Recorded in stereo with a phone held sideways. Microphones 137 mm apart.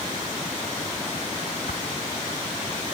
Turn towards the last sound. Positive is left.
turn(degrees=75)  # may be behind; listen again after turning